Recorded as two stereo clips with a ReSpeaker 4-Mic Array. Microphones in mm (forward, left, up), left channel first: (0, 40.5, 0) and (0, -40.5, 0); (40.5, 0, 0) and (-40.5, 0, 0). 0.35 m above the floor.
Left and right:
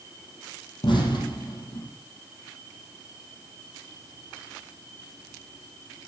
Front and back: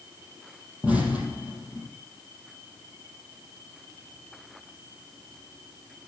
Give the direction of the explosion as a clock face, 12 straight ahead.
9 o'clock.